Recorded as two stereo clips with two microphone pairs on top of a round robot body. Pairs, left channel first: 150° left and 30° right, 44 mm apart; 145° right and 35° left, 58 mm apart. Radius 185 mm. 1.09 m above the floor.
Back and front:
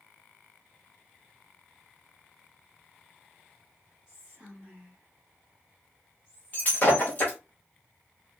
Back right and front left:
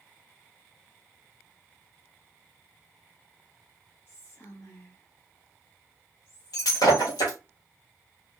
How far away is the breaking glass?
About 0.9 m.